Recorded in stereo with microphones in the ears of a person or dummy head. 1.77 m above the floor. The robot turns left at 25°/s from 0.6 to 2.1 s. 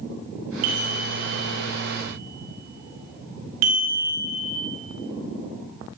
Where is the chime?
45° right (ahead or behind), 0.9 m; by 4.6 s 80° right, 0.9 m.